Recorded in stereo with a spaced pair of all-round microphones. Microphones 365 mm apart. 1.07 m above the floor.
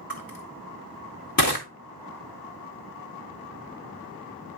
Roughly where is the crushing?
Left.